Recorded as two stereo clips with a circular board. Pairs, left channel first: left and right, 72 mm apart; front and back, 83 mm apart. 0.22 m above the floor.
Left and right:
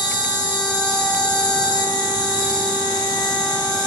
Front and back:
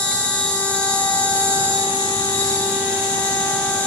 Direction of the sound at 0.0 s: 75° left.